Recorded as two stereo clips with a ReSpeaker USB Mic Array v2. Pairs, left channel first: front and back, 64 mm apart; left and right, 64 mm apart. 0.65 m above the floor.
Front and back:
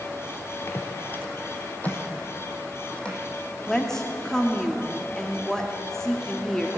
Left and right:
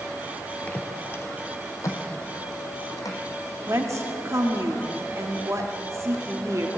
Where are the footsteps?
30° left, 0.9 m; by 3.2 s 75° left, 2 m.